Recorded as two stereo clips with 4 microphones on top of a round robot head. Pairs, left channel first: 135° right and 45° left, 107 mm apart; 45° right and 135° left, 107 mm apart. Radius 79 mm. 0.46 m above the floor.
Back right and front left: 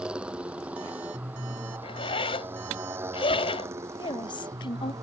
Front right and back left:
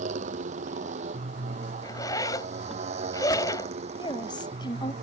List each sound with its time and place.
0.0 s a motorcycle: 125° left; by 5.0 s 105° left
1.8 s a zipper: 100° right
4.0 s a woman speaking: 95° right